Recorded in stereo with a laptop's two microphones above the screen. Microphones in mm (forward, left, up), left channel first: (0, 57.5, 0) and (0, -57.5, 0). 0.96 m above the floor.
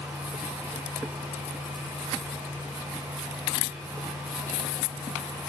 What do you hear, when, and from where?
0.0 s a fan: 25° right (ahead or behind), 0.9 m